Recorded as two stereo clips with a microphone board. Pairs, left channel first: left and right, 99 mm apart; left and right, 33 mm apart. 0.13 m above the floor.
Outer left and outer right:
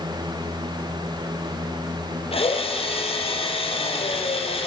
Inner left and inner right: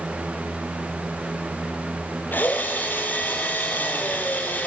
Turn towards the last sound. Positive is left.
turn(degrees=70)  # may be behind; listen again after turning